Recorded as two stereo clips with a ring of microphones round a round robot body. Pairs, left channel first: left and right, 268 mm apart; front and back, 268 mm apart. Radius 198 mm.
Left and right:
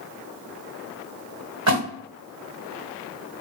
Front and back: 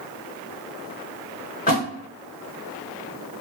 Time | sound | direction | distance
1.7 | a splash | 70° right | 1.5 m